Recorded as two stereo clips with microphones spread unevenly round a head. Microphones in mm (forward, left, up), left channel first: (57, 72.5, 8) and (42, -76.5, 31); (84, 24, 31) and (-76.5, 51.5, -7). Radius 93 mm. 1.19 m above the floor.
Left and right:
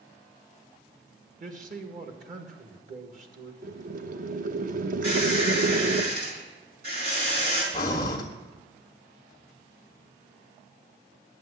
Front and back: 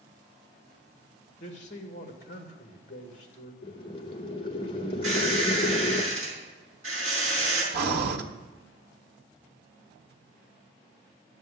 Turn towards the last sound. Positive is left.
turn(degrees=155)